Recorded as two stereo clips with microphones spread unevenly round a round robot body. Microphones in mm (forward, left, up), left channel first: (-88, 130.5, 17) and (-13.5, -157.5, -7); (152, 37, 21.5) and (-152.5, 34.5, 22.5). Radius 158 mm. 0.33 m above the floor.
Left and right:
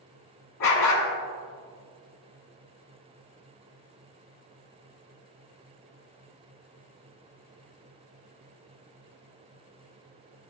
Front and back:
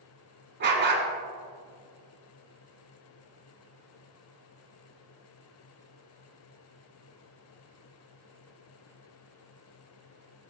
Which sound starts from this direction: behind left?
A dog barking, at 0.6 s.